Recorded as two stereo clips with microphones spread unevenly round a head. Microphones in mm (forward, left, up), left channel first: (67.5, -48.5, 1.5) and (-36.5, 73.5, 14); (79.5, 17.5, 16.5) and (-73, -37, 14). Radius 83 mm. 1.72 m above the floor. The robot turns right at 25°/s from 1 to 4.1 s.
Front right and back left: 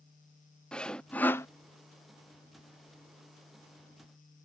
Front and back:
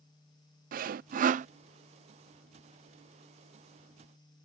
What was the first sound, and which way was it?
Sawing, 135° right.